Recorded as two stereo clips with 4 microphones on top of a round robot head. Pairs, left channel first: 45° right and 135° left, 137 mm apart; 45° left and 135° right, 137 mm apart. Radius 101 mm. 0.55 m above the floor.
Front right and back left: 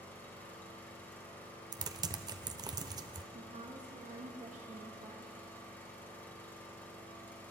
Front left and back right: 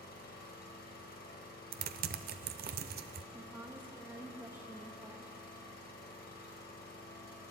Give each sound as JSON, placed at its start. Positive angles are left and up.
{"t": 0.0, "sound": "an engine running", "azimuth_deg": 35, "distance_m": 2.0}
{"t": 1.7, "sound": "typing on a keyboard", "azimuth_deg": -155, "distance_m": 0.6}
{"t": 3.3, "sound": "a woman speaking", "azimuth_deg": 155, "distance_m": 1.7}